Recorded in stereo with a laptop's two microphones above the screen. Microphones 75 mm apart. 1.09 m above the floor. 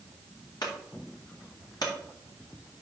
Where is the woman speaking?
No woman speaking in this recording.